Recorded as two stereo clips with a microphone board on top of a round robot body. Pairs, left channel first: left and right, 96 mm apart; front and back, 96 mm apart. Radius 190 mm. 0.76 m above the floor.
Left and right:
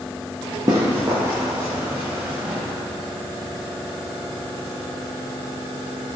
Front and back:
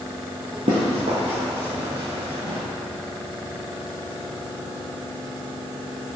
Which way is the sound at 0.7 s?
150° right.